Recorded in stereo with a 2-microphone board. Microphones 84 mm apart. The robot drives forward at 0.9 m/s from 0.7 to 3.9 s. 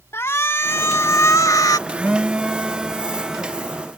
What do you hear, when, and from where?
0.1 s a shout: 30° left (ahead or behind); by 1.8 s 45° left (ahead or behind)
1.9 s a phone buzzing: 15° right (ahead or behind); by 3.6 s 5° right (ahead or behind)